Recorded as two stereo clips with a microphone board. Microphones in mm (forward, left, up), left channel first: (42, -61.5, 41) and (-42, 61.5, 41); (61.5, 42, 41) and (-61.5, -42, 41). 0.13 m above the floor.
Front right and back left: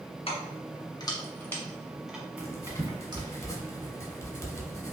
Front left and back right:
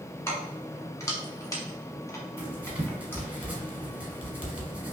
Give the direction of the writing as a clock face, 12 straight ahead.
3 o'clock.